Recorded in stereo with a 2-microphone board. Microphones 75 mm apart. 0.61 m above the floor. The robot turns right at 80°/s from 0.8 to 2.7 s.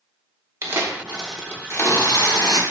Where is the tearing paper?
35° right, 0.7 m; by 2.6 s 110° left, 0.7 m.